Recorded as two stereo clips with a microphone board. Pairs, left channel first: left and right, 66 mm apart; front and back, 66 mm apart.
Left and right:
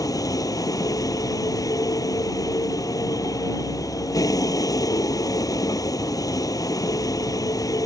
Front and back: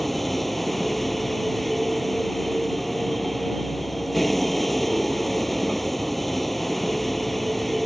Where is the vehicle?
90° left.